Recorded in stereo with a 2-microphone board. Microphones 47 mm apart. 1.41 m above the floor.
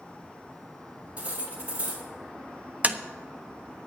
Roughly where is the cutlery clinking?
Right.